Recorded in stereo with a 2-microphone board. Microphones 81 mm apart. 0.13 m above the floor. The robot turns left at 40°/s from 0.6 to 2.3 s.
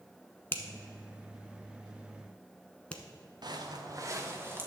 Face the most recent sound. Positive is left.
turn(degrees=-30)  # may be behind; listen again after turning